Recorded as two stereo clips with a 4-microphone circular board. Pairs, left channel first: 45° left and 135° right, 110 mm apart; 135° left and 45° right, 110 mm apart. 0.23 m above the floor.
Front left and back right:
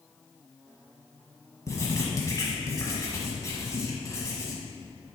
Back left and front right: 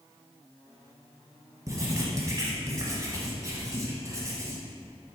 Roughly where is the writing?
Ahead.